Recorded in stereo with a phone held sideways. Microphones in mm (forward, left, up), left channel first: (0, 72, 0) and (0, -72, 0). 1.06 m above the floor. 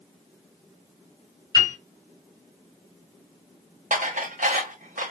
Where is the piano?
35° left (ahead or behind), 3 m.